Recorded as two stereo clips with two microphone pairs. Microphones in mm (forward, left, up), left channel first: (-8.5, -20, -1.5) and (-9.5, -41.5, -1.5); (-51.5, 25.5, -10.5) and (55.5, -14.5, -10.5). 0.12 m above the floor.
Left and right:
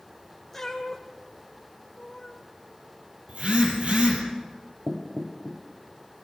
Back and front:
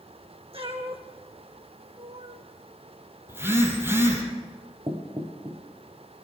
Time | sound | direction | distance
0.5 | a cat meowing | 10° left | 2 m
3.3 | a phone buzzing | 90° right | 4 m
4.9 | knocking | 65° right | 2.5 m